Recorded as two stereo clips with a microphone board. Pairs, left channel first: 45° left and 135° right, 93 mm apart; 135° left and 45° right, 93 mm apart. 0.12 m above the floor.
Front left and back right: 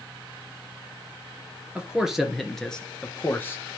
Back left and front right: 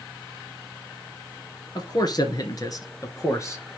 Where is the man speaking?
150° left, 1.8 m; by 3.8 s 95° left, 1.6 m.